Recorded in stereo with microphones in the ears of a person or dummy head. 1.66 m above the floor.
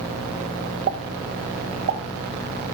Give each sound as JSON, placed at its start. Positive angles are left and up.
{"t": 0.9, "sound": "a pop", "side_deg": -45, "distance_m": 1.4}